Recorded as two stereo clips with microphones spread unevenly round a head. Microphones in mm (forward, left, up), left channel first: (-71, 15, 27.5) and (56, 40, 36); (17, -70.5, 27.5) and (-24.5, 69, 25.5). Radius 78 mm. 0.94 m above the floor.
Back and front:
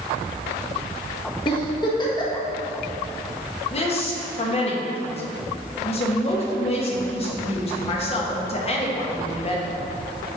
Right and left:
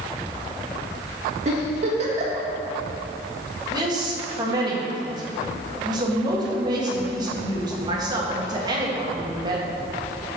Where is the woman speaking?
165° left, 1.5 m.